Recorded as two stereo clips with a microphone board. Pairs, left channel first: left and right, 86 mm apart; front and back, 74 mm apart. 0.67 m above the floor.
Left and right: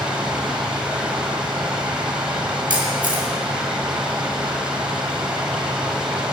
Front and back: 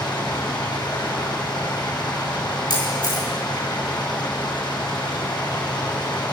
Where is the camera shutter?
15° right, 6 m.